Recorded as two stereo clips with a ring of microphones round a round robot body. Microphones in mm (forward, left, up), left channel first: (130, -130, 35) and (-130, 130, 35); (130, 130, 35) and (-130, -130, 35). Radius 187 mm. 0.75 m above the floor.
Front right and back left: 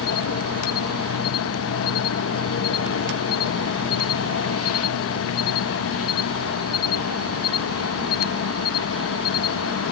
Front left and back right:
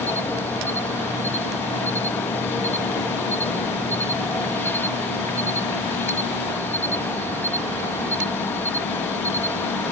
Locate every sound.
0.0 s an insect: 35° right